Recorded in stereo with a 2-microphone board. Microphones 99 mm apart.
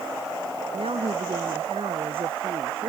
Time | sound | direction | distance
0.7 | a woman speaking | 75° right (ahead or behind) | ?